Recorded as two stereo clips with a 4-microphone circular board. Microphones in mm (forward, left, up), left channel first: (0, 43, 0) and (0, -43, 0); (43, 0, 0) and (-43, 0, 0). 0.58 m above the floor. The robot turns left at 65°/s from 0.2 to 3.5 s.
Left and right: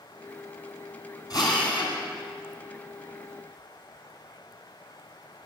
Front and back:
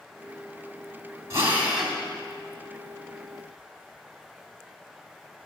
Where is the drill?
130° left, 2 m; by 2.0 s 85° left, 2 m.